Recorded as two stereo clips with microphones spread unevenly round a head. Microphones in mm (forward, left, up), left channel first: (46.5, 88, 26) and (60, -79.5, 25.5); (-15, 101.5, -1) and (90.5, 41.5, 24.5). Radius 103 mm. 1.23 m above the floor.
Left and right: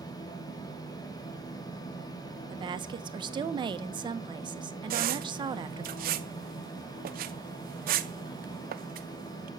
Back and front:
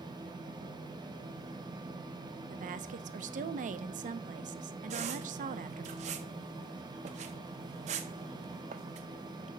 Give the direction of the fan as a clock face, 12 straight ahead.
11 o'clock.